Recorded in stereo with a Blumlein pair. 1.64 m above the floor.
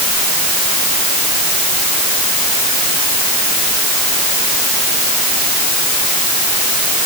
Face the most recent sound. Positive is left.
No sound to turn to.